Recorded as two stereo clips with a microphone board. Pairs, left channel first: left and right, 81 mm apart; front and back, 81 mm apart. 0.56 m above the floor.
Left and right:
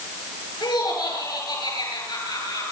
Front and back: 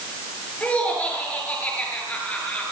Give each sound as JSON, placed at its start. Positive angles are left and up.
{"t": 0.6, "sound": "laughter", "azimuth_deg": 70, "distance_m": 9.0}